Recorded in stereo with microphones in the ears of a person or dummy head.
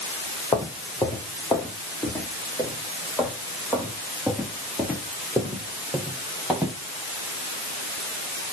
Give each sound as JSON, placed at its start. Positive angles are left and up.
{"t": 0.5, "sound": "footsteps", "side_deg": 20, "distance_m": 4.0}